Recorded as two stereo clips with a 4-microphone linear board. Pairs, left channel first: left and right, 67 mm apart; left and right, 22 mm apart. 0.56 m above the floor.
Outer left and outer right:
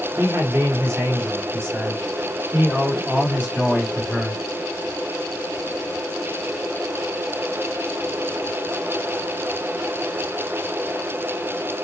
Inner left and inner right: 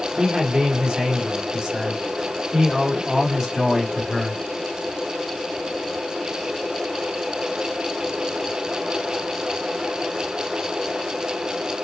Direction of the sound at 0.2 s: 50° right (ahead or behind).